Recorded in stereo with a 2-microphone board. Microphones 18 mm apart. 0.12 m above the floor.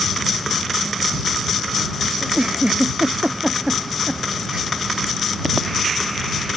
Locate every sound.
2.2 s a giggle: 50° right (ahead or behind)